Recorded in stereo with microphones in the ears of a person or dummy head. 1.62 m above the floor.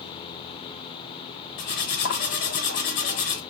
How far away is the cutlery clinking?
About 1.0 m.